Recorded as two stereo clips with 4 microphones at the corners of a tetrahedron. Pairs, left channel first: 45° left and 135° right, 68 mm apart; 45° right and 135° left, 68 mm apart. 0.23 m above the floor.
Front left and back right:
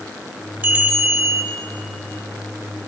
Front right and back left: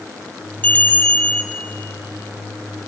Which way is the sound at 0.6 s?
90° right.